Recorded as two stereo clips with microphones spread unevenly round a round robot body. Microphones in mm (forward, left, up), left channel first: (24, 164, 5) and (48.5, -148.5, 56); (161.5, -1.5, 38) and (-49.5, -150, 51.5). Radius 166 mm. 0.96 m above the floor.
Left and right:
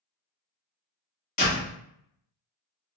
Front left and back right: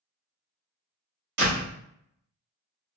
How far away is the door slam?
About 1.2 m.